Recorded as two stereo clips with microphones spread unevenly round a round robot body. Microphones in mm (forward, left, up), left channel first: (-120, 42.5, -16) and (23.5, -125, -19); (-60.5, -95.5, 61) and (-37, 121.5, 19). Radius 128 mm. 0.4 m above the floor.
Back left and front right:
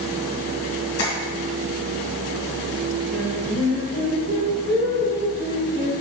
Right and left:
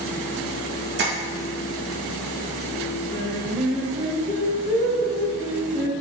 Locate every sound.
1.0 s tapping: 105° left, 2 m
3.1 s singing: 20° right, 1.7 m